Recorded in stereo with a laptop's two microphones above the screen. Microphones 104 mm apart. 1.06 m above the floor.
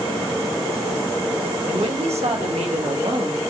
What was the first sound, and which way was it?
A woman speaking, 75° right (ahead or behind).